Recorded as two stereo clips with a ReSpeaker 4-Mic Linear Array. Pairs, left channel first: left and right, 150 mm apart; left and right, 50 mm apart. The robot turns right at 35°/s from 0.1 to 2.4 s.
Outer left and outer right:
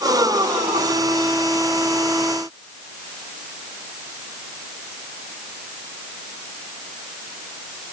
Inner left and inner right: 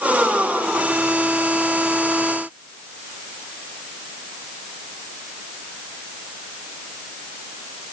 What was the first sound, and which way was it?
Only background noise.